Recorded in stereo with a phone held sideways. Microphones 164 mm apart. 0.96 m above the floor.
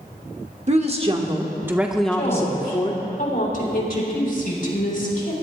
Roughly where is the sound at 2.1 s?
Left.